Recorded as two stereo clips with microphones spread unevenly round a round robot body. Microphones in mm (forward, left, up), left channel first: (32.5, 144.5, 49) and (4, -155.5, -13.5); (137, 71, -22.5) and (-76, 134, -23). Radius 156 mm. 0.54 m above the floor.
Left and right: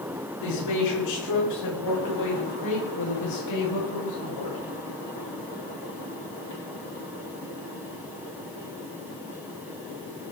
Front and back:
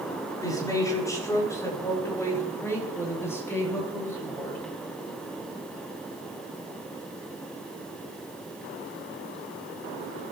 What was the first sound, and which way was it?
A man speaking, 55° left.